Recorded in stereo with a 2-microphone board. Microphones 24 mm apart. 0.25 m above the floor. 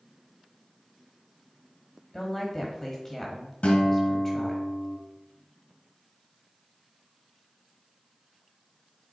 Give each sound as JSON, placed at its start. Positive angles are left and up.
{"t": 2.1, "sound": "a woman speaking", "side_deg": 15, "distance_m": 1.2}
{"t": 3.6, "sound": "a guitar", "side_deg": 70, "distance_m": 1.9}